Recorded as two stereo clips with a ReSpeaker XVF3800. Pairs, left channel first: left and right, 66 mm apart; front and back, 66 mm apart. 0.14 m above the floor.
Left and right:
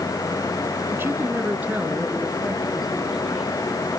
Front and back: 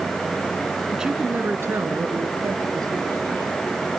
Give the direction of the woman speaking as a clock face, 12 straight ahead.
3 o'clock.